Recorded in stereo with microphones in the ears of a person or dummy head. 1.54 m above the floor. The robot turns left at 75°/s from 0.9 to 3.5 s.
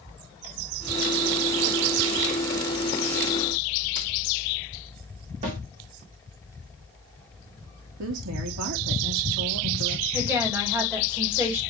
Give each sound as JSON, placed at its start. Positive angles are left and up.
{"t": 5.4, "sound": "a snare drum", "side_deg": -35, "distance_m": 2.5}
{"t": 8.0, "sound": "a woman speaking", "side_deg": -65, "distance_m": 1.4}
{"t": 10.1, "sound": "a woman speaking", "side_deg": -10, "distance_m": 2.5}